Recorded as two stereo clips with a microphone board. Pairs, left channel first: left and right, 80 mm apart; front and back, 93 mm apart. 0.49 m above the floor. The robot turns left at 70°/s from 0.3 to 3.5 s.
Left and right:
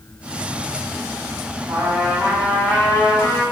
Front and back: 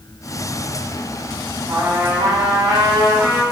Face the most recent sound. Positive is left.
turn(degrees=115)